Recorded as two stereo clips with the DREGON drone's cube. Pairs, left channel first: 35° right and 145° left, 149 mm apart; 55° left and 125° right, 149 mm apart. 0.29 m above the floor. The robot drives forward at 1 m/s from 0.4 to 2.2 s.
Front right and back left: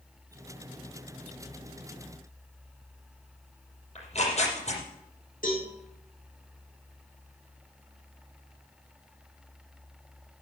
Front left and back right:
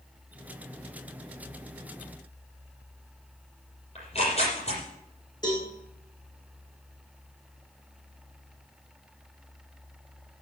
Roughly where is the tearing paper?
Ahead.